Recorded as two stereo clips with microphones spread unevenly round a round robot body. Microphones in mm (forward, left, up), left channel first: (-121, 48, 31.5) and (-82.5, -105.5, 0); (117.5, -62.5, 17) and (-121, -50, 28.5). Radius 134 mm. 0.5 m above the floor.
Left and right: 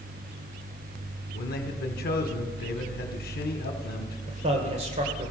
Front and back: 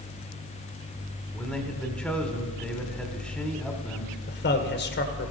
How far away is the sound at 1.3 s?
About 1.3 m.